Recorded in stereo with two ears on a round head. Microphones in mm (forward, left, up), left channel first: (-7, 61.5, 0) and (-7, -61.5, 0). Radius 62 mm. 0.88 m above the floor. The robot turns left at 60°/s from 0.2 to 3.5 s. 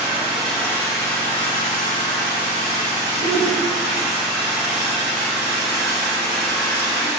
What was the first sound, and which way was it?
An engine running, 165° right.